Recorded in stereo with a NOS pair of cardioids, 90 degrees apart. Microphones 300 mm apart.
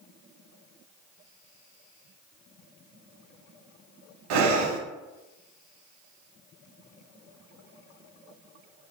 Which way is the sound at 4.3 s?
70° right.